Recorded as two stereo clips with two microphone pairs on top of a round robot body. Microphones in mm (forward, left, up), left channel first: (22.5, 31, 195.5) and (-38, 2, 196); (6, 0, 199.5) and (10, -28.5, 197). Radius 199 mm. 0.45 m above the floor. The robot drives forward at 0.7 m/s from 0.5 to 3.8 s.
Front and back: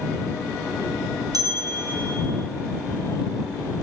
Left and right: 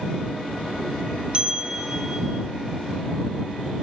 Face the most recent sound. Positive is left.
turn(degrees=-165)